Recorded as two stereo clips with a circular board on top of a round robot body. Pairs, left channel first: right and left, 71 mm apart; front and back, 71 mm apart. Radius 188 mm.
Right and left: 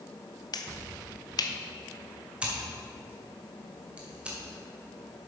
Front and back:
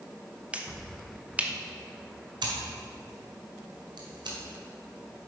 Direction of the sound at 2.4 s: 165° left.